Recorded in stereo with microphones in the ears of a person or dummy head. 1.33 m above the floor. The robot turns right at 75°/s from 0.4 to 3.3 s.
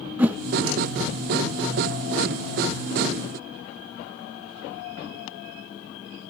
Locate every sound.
0.2 s a whoosh: 5° right (ahead or behind), 0.8 m